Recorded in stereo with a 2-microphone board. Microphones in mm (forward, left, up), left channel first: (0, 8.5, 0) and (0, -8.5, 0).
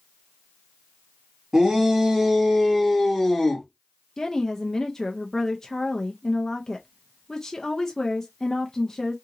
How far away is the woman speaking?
About 0.5 m.